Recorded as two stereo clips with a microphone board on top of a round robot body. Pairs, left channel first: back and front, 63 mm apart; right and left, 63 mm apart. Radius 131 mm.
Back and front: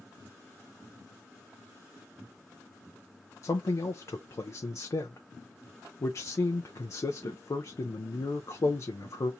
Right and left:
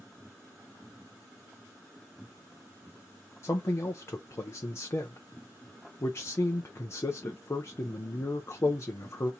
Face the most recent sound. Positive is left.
turn(degrees=-140)